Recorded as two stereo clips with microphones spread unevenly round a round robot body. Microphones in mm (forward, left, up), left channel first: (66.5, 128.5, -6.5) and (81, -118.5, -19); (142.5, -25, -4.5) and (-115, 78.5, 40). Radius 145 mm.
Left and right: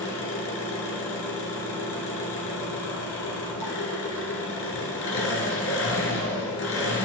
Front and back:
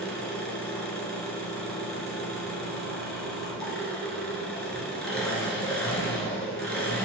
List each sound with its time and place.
0.0 s an engine running: 65° left, 1.7 m